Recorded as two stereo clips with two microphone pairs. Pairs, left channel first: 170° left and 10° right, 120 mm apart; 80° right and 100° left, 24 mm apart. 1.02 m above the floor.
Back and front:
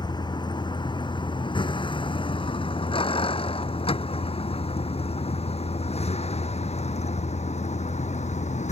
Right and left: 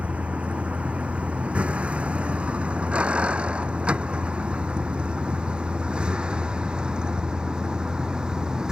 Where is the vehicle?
120° left; by 8.7 s 155° left.